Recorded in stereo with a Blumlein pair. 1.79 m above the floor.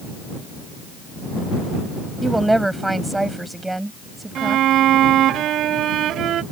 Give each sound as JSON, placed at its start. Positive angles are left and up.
{"t": 2.2, "sound": "a woman speaking", "azimuth_deg": -5}
{"t": 4.3, "sound": "a violin", "azimuth_deg": -30}